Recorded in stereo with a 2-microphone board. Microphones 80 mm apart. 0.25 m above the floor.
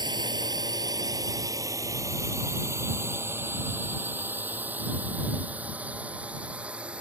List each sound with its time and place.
0.0 s a drone: 65° right (ahead or behind); by 7.0 s 15° right (ahead or behind)